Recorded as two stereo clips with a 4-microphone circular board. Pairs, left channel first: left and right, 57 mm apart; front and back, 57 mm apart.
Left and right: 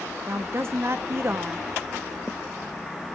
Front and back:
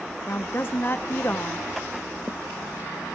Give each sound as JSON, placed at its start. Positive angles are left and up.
{"t": 0.3, "sound": "a woman speaking", "azimuth_deg": -50, "distance_m": 1.7}